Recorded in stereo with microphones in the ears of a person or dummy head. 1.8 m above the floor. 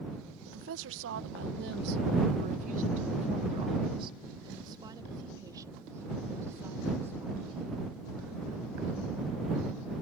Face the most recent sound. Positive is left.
turn(degrees=-10)  # may be behind; listen again after turning